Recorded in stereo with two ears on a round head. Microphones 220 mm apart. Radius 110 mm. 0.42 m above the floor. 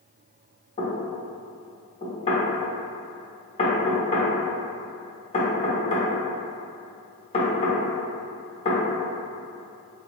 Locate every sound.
0.8 s knocking: 25° left (ahead or behind), 0.9 m